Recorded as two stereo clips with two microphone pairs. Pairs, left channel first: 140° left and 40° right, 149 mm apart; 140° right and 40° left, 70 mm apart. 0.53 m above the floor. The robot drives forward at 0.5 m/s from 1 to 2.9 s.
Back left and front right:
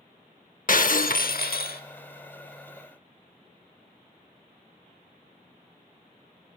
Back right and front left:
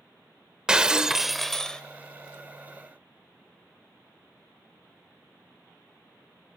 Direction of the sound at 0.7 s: 120° left.